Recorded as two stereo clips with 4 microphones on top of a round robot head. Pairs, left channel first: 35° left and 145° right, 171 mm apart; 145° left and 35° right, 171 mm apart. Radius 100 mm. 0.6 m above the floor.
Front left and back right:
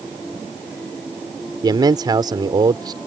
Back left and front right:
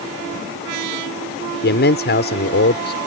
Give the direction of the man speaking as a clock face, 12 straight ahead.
7 o'clock.